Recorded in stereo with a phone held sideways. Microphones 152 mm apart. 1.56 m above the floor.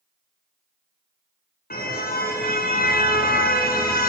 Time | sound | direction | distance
1.7 | a car horn | 80° left | 6.5 m